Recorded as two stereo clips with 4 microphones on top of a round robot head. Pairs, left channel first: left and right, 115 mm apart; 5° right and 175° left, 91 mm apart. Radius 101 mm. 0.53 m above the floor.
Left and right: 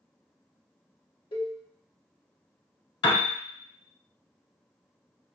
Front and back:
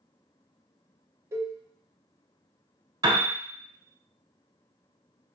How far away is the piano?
About 0.7 m.